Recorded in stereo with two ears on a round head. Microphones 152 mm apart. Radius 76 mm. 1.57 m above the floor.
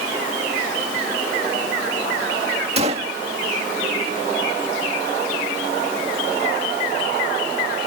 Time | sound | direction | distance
2.8 | a gunshot | 35° right (ahead or behind) | ?